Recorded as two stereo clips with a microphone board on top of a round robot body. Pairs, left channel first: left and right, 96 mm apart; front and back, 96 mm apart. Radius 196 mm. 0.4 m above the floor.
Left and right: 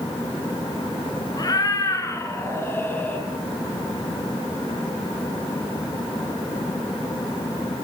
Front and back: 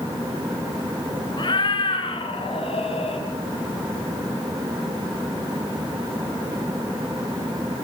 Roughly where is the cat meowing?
Ahead left.